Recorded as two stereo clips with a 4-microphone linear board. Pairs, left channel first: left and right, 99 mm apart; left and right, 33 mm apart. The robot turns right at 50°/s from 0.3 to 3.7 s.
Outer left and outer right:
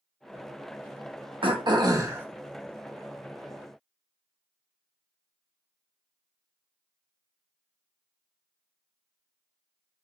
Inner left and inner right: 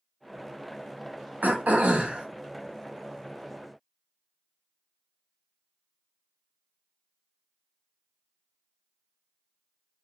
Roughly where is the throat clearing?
Ahead right.